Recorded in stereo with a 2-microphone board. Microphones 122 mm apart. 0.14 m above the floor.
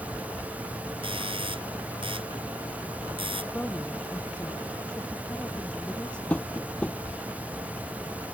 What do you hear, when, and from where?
1.0 s a doorbell: 45° right (ahead or behind)
3.5 s a woman speaking: 10° left (ahead or behind)
6.3 s tapping: 10° left (ahead or behind)